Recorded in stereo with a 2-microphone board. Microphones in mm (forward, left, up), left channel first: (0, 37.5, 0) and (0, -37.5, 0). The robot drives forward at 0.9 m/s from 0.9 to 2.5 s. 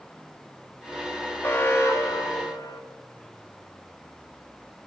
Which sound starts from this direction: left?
An alarm, at 1.4 s.